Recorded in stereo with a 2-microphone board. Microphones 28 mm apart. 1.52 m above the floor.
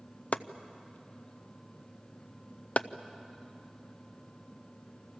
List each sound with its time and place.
0.3 s chopping: 55° left (ahead or behind), 0.6 m